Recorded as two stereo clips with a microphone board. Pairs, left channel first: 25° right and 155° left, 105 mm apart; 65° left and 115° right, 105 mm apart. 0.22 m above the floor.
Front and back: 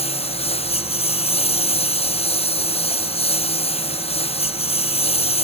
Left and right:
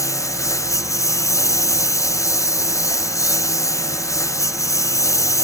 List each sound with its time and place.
0.0 s a lawn mower: 5° left